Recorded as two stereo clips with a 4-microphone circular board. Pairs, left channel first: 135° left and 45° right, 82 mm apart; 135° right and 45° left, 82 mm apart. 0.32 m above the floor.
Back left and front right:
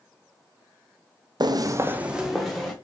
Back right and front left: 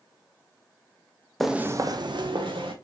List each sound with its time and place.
1.4 s footsteps: 50° right, 0.5 m; by 2.7 s 50° left, 1.2 m